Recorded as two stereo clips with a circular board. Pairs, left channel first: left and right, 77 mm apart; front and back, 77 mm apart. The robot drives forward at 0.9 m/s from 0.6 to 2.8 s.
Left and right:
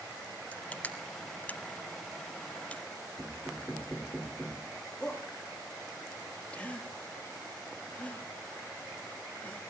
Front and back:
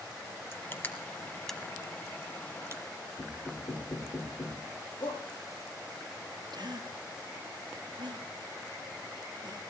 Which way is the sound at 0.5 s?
30° left.